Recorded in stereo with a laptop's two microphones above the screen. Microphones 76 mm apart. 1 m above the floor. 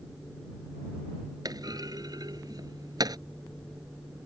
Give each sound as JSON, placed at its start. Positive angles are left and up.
{"t": 1.4, "sound": "a clunk", "side_deg": -60}